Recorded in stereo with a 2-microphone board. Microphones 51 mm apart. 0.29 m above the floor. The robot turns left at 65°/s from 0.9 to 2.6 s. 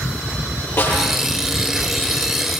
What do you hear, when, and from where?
0.8 s a snare drum: 45° left (ahead or behind), 9 m; by 1.1 s 55° left (ahead or behind), 9 m